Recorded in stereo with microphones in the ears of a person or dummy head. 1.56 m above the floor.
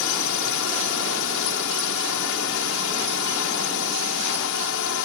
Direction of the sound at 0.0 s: 65° left (ahead or behind).